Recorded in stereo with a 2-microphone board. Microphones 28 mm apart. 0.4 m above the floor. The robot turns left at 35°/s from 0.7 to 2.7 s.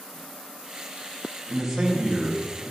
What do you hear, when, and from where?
1.5 s a man speaking: straight ahead, 2.5 m; by 2.7 s 40° right, 2.5 m